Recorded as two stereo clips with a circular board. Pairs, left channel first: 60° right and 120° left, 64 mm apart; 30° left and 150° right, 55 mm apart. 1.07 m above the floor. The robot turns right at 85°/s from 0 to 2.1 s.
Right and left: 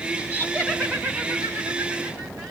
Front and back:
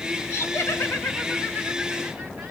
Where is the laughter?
10° right, 2 m; by 2.5 s 140° left, 2 m.